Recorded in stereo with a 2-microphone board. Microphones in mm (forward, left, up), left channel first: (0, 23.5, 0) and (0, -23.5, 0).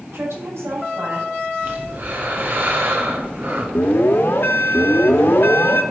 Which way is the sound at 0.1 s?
75° right (ahead or behind).